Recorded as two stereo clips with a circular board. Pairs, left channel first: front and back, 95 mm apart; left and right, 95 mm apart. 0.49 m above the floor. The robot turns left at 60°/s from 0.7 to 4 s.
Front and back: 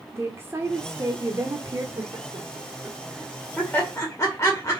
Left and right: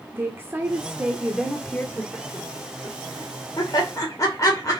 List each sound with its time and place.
0.1 s a woman speaking: 140° right, 1.0 m; by 1.9 s 150° left, 1.0 m
2.0 s laughter: 170° left, 2 m; by 4.8 s 50° left, 2 m